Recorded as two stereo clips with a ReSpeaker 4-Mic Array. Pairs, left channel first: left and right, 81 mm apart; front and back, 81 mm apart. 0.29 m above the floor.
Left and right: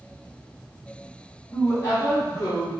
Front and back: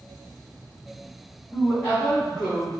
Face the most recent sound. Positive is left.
turn(degrees=95)